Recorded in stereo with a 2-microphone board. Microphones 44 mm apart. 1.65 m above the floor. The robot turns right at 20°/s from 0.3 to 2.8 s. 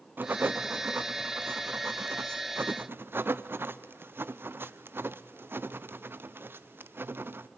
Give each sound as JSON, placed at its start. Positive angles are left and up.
{"t": 0.2, "sound": "writing", "side_deg": -45, "distance_m": 0.6}